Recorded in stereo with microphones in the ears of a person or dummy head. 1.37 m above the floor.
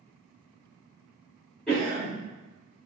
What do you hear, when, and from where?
1.7 s a cough: 5° left (ahead or behind), 1.7 m